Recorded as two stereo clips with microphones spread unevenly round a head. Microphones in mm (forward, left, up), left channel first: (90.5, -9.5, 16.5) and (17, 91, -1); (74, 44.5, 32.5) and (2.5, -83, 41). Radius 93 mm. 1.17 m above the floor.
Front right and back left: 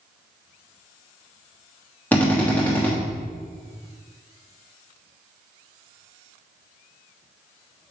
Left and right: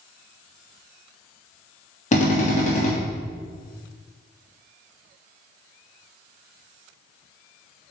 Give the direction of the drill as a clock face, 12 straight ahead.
11 o'clock.